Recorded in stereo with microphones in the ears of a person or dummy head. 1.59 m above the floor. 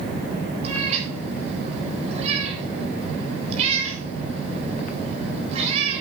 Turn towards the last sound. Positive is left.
turn(degrees=-40)  # may be behind; listen again after turning